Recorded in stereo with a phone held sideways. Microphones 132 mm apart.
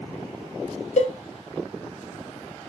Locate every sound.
1.0 s a cowbell: 65° left (ahead or behind), 0.5 m